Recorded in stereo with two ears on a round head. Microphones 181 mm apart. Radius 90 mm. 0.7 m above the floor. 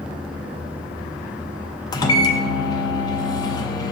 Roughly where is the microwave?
Left.